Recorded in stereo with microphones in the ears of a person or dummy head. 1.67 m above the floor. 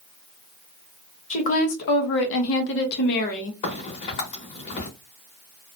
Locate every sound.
1.3 s a woman speaking: 40° left (ahead or behind), 0.9 m; by 3.5 s 45° left (ahead or behind), 0.8 m
3.6 s a crack: 35° left (ahead or behind), 1.0 m